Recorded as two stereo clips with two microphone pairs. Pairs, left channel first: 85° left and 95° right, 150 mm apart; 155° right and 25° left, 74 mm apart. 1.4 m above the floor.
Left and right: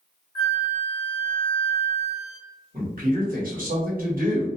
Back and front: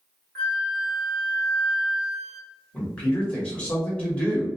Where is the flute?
135° left, 1.3 m.